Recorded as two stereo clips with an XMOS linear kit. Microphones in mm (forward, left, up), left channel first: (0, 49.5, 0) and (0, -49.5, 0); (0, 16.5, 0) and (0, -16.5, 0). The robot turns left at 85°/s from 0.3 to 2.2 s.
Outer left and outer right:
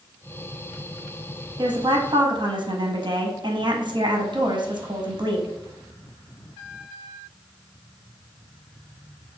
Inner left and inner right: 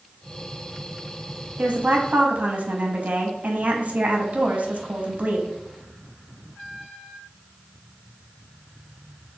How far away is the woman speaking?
About 0.6 m.